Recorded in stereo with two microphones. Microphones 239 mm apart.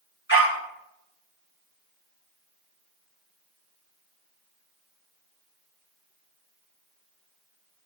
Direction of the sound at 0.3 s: 50° left (ahead or behind).